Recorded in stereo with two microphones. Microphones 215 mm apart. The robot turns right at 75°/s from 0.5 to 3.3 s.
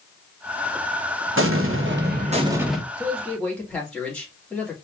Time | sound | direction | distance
1.4 | an explosion | 105° right | 1.1 m
3.0 | a man speaking | 20° right (ahead or behind) | 2.5 m